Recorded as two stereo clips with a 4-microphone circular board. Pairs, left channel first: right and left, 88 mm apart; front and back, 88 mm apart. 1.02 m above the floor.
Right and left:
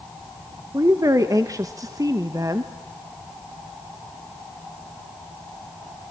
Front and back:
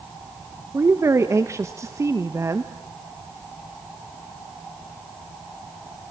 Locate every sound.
0.7 s a woman speaking: 130° left, 1.1 m